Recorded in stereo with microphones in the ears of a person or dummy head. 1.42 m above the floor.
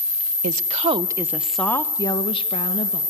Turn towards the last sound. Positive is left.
turn(degrees=40)  # may be behind; listen again after turning